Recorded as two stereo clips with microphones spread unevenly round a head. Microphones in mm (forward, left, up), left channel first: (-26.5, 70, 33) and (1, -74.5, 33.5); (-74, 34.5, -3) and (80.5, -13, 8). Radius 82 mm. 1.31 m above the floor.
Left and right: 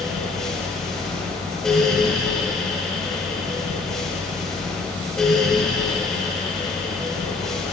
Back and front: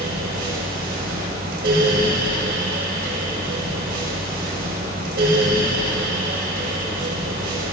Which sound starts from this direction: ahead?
A fan, at 0.0 s.